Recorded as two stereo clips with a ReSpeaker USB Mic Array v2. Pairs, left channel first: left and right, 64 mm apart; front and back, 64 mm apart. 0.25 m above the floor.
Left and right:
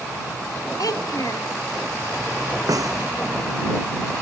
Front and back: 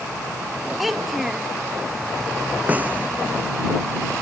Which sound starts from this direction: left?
A child speaking, at 0.8 s.